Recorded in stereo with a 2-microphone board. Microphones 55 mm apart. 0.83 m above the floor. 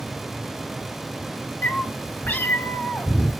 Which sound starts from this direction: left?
A cat meowing, at 1.6 s.